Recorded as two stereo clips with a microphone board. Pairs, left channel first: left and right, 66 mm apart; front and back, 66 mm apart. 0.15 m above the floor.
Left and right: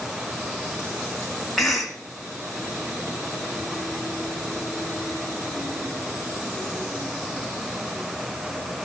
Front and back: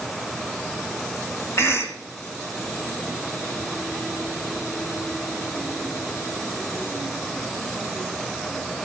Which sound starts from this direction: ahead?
A cough, at 1.6 s.